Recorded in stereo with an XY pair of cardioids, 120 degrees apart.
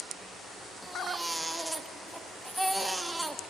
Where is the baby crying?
5° right, 1.2 m.